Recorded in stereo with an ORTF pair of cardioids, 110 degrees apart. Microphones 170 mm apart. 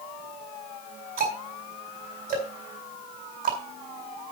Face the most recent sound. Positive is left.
turn(degrees=-55)